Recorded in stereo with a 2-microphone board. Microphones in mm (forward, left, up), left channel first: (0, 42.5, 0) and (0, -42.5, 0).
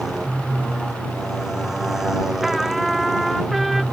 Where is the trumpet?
Centre (ahead or behind).